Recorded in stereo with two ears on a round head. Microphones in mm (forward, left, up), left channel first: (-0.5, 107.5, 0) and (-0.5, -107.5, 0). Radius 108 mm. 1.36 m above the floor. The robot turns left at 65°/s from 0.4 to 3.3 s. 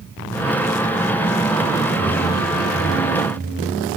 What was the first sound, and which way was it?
A whoosh, 20° right.